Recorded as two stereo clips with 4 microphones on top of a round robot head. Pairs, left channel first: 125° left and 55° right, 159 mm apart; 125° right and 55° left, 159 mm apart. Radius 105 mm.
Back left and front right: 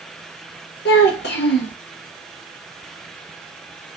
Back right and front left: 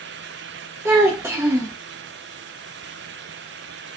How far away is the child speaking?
About 0.6 m.